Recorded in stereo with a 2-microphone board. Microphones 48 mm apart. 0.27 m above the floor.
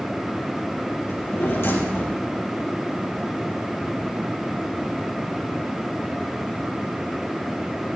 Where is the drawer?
55° left (ahead or behind), 4 m.